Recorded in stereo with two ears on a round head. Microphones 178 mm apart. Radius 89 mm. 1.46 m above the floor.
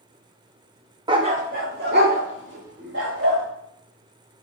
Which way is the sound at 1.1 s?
25° right (ahead or behind).